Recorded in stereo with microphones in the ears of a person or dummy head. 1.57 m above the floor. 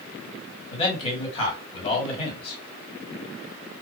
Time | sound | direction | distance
0.7 | a man speaking | 30° left (ahead or behind) | 1.9 m